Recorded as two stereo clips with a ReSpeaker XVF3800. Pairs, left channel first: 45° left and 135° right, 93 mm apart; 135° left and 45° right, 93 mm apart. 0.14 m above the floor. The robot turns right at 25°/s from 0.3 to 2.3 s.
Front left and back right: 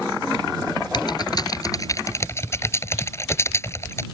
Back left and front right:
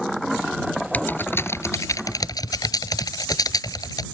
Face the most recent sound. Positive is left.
turn(degrees=100)